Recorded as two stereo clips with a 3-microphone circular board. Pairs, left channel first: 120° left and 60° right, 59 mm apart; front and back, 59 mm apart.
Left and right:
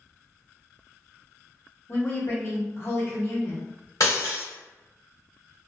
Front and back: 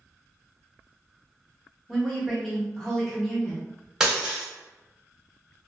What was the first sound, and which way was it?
A woman speaking, 85° left.